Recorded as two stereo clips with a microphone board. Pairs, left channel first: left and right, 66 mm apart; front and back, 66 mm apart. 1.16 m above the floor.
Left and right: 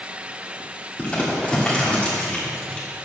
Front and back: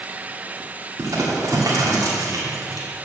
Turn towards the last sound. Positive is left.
turn(degrees=160)